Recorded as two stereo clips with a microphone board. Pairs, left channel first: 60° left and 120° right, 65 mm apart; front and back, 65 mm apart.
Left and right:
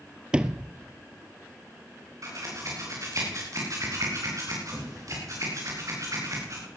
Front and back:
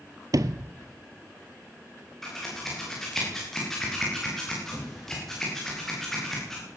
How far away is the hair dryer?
No hair dryer in this recording.